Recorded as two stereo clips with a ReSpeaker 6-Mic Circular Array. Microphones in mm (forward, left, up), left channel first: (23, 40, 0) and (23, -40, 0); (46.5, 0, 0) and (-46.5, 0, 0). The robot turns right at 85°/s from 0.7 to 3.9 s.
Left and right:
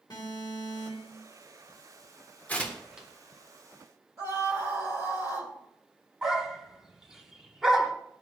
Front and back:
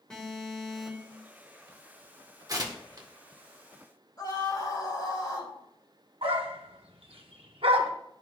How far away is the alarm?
About 2.0 m.